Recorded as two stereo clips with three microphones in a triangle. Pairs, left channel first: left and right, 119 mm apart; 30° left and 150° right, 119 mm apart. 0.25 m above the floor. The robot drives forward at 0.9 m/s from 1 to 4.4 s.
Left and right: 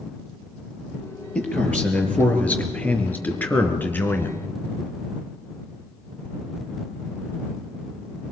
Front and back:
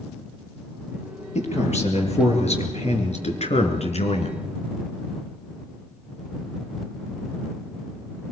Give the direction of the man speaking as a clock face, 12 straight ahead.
12 o'clock.